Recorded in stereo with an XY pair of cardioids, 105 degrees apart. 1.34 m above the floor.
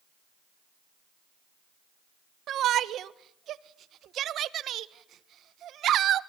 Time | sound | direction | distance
2.5 | a shout | 65° right | 1.3 m